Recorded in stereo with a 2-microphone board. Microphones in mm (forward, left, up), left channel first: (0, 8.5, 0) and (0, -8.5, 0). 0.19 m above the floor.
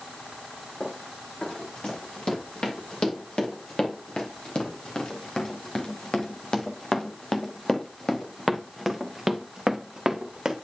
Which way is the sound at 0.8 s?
80° left.